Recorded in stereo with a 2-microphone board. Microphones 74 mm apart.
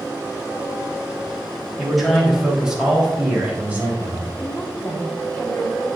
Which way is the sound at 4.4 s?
15° left (ahead or behind).